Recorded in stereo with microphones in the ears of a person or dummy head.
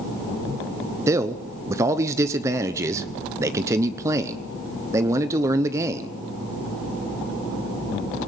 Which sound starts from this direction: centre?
A man speaking, at 1.1 s.